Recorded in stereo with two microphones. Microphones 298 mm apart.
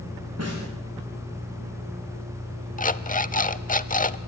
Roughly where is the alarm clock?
Left.